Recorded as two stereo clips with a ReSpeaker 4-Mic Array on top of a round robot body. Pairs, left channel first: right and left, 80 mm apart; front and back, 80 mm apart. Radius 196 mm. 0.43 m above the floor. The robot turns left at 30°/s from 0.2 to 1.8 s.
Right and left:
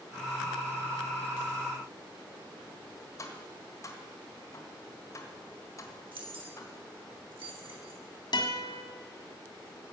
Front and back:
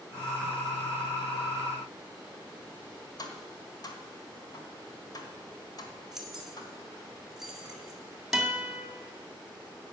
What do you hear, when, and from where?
3.2 s tapping: 40° right, 1.5 m
6.1 s keys jangling: 95° left, 2.5 m
8.3 s a guitar: 95° right, 2.0 m